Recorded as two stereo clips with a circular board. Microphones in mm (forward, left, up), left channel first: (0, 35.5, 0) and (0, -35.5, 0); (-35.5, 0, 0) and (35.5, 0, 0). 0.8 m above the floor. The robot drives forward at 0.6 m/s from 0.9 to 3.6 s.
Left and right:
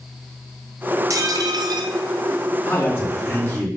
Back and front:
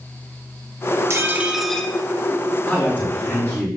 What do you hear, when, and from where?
1.1 s dishes clattering: 50° right, 0.6 m; by 1.9 s 110° right, 0.5 m
2.6 s a man speaking: 115° left, 1.3 m; by 3.7 s 140° left, 1.6 m